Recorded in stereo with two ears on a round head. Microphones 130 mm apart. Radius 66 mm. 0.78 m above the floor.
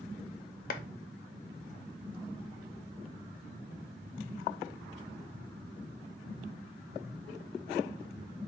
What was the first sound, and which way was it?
A clap, 65° left (ahead or behind).